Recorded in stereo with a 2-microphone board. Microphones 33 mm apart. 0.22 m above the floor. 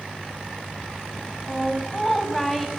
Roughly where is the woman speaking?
Centre.